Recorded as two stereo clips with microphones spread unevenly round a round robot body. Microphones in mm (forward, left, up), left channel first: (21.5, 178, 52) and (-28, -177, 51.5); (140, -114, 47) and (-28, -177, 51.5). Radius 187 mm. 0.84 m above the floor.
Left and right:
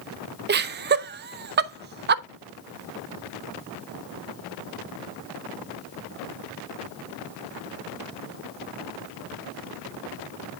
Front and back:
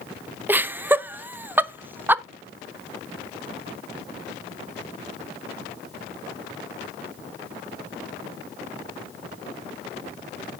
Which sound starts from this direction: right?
Laughter, at 0.5 s.